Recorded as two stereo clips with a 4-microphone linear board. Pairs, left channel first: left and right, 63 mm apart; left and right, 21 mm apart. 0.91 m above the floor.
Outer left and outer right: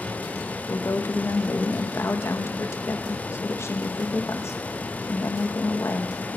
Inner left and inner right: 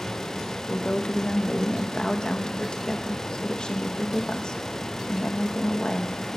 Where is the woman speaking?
45° left (ahead or behind), 0.7 m.